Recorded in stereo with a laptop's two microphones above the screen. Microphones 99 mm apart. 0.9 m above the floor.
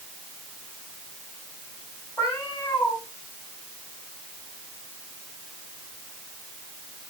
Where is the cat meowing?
20° left (ahead or behind), 3.5 m.